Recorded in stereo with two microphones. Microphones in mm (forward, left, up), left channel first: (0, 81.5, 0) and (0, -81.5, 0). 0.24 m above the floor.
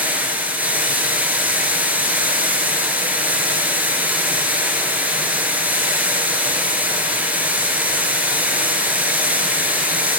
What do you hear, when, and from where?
0.0 s running water: 10° right (ahead or behind), 1.4 m